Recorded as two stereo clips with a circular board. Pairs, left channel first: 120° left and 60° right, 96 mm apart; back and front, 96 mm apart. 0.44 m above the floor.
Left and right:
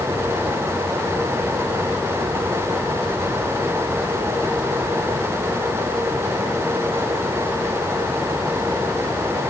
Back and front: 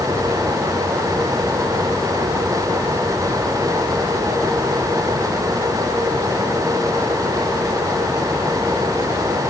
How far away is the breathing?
I don't hear breathing.